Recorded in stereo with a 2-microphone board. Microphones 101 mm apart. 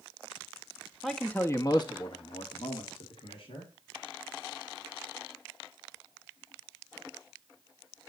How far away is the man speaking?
About 1.1 m.